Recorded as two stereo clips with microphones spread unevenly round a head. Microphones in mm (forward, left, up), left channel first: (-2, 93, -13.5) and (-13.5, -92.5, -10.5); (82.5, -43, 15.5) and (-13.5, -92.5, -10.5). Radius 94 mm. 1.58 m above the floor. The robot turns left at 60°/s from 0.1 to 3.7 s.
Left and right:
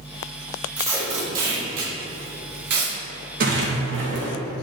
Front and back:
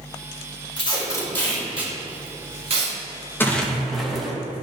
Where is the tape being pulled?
10° right, 2 m; by 2.9 s 140° right, 2 m.